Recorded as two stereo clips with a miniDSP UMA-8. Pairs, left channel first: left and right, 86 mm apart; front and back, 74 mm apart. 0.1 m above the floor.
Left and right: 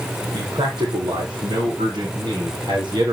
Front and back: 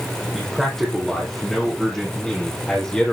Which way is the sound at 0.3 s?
85° right.